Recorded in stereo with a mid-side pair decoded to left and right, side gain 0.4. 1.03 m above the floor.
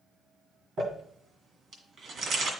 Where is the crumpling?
60° right, 2.0 m.